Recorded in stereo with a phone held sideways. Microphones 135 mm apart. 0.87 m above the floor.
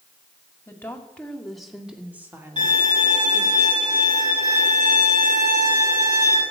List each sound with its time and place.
0.7 s a woman speaking: 20° left (ahead or behind), 2 m; by 3.6 s 30° right (ahead or behind), 2.5 m
2.6 s a violin: 60° right (ahead or behind), 8 m